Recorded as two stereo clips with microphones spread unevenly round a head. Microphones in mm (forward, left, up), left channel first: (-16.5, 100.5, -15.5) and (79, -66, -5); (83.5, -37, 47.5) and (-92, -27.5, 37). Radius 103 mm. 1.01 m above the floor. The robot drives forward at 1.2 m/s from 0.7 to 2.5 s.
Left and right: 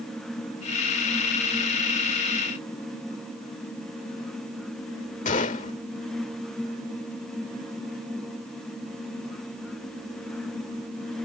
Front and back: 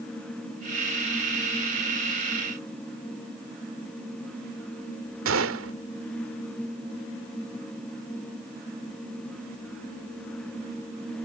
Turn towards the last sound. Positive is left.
turn(degrees=175)